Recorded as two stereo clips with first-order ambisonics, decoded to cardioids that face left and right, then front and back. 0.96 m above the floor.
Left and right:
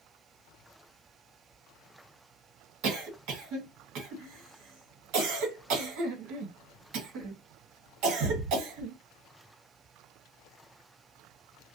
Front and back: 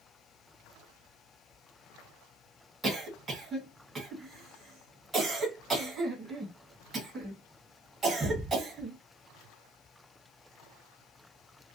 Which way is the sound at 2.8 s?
105° right.